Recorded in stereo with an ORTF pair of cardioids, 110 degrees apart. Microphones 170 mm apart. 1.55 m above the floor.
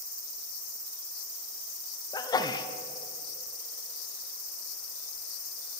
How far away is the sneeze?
About 0.6 m.